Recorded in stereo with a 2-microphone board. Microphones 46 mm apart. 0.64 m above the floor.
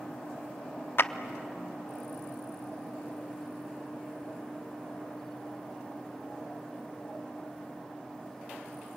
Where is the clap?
55° left (ahead or behind), 0.7 m.